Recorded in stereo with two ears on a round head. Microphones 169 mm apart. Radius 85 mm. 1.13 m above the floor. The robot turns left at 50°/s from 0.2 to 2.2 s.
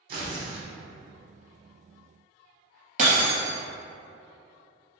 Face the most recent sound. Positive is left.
turn(degrees=-40)  # may be behind; listen again after turning